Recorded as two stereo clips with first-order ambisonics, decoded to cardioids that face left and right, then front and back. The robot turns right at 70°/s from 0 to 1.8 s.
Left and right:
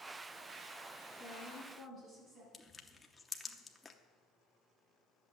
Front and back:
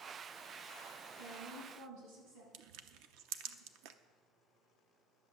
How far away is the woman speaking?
About 7.5 m.